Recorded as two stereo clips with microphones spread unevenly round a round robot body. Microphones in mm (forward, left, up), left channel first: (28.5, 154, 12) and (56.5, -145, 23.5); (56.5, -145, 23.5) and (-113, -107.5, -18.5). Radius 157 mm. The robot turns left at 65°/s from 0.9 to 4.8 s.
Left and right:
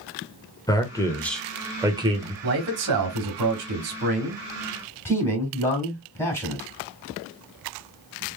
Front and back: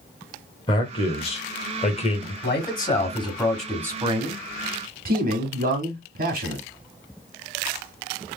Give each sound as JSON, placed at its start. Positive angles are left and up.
{"t": 0.7, "sound": "a man speaking", "azimuth_deg": 45, "distance_m": 1.1}
{"t": 2.4, "sound": "a man speaking", "azimuth_deg": -30, "distance_m": 1.7}